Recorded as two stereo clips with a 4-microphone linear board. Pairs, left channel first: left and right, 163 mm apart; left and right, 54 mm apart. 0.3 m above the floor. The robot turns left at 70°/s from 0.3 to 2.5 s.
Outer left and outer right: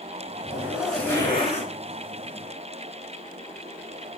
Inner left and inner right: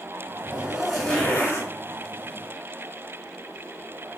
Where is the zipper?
150° right, 1.4 m; by 1.7 s 120° left, 1.4 m.